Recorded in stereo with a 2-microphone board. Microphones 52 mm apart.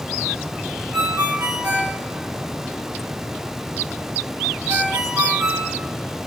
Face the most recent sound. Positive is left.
turn(degrees=-75)  # may be behind; listen again after turning